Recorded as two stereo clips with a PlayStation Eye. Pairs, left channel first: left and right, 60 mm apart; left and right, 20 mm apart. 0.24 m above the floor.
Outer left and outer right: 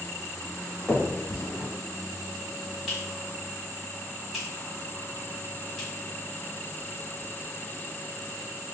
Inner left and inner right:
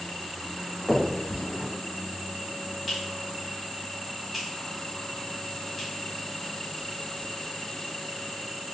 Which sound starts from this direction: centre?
A finger snap, at 0.9 s.